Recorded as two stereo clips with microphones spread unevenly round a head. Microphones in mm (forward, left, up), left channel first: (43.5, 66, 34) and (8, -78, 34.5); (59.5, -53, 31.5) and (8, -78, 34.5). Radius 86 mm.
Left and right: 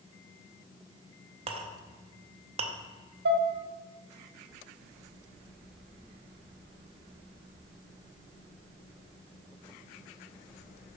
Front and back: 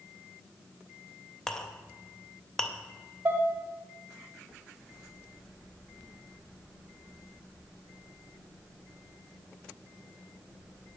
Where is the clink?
55° right, 0.6 m.